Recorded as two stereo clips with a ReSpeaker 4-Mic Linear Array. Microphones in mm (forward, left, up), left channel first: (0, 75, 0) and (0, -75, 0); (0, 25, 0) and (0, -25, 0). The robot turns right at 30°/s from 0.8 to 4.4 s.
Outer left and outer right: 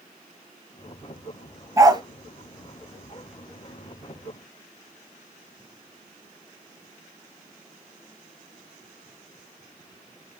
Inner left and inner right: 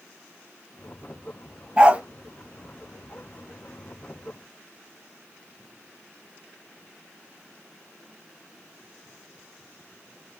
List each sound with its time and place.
1.8 s a dog barking: 20° right (ahead or behind), 0.7 m; by 2.0 s 30° right (ahead or behind), 0.7 m